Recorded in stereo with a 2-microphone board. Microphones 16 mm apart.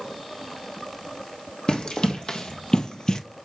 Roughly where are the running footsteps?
Left.